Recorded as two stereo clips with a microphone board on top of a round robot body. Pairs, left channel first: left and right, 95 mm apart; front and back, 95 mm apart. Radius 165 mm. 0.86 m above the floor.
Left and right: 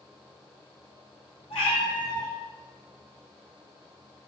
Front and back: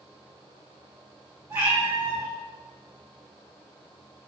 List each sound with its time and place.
1.5 s a cat meowing: 115° left, 3 m